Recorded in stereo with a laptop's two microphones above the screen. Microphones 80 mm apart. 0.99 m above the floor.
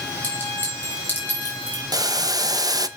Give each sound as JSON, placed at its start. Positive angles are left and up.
{"t": 0.2, "sound": "a clink", "side_deg": 25, "distance_m": 4.0}
{"t": 1.9, "sound": "boiling", "side_deg": -55, "distance_m": 0.6}